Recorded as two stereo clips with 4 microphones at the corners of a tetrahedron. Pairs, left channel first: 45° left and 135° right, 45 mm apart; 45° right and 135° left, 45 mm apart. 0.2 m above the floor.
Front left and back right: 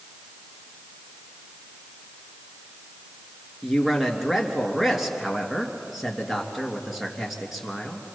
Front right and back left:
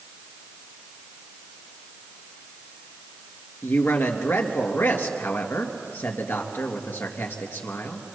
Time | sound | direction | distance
3.6 | a man speaking | 50° right | 3 m